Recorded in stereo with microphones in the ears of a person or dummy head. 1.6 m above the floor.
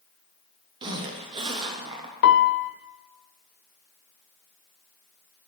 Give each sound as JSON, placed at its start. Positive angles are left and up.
{"t": 0.8, "sound": "a zipper", "side_deg": -30, "distance_m": 1.0}
{"t": 2.2, "sound": "a piano", "side_deg": 65, "distance_m": 0.6}